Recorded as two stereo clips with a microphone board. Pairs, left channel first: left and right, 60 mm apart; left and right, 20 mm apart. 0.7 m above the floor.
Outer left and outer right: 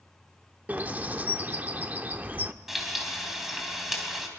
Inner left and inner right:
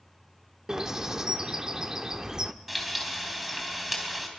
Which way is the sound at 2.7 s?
5° right (ahead or behind).